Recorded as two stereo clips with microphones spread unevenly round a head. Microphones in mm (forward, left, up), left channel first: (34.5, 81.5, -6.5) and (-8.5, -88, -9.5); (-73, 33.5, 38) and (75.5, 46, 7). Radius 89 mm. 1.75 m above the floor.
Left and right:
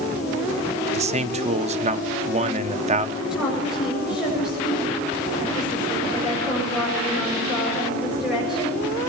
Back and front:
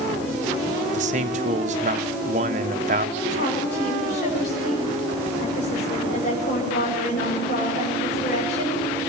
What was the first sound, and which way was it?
A man speaking, 50° right.